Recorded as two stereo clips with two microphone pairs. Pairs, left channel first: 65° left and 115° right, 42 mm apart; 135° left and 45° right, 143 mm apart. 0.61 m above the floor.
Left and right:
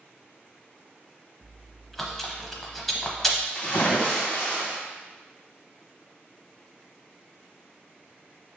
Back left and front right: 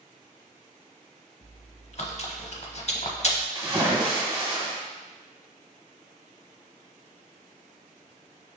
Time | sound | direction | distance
1.4 | chewing | 150° left | 0.6 m
3.5 | a splash | 20° left | 1.4 m